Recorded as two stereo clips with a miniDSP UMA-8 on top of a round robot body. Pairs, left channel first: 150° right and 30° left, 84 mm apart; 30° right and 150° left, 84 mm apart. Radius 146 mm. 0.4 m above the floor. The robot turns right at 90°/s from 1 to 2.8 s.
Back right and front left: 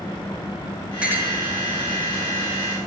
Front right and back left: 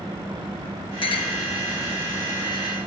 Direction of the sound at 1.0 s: 50° right.